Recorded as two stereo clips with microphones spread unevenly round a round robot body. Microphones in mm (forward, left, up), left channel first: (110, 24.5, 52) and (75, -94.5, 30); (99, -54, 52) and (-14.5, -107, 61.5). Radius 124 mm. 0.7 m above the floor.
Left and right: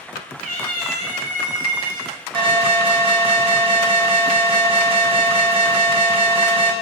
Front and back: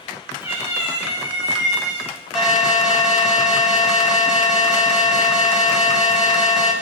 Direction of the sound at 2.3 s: 70° right.